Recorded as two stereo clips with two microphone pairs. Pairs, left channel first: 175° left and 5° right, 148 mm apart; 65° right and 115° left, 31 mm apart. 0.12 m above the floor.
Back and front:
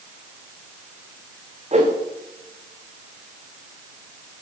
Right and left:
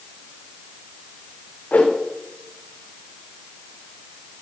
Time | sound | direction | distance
1.7 | a whoosh | 40° right | 3 m